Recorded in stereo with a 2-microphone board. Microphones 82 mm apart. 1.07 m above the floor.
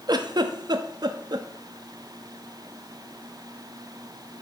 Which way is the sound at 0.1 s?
55° right (ahead or behind).